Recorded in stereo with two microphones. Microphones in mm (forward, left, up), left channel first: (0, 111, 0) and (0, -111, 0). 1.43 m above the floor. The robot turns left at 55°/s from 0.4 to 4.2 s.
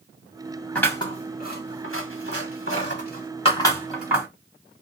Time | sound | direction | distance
0.8 | scissors | 5° left (ahead or behind) | 1.6 m